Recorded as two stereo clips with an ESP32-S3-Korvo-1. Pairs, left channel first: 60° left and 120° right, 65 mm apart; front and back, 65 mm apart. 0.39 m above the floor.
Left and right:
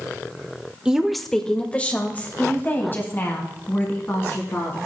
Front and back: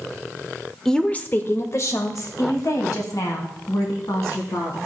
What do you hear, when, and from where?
0.8 s a woman speaking: 70° right, 0.8 m; by 4.8 s 10° left, 3.5 m